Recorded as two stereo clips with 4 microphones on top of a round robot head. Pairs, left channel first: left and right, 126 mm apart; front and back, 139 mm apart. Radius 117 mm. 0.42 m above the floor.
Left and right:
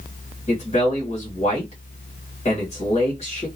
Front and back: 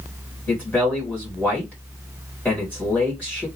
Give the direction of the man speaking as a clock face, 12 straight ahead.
9 o'clock.